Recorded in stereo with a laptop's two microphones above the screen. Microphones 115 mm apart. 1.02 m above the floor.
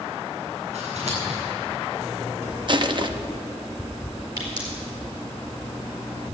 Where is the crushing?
45° right (ahead or behind), 0.6 m.